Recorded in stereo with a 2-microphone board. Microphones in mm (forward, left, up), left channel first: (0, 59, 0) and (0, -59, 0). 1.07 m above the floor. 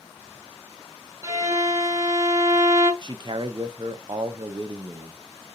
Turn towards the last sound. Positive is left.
turn(degrees=-40)  # may be behind; listen again after turning